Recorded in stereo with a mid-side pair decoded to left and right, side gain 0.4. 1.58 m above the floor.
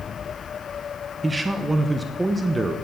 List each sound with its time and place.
1.2 s a man speaking: 15° right, 1.0 m